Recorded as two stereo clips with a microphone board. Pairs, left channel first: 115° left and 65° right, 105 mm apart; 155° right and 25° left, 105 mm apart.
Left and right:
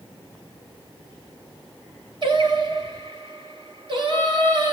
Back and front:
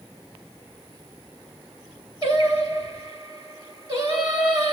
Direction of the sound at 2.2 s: 25° right.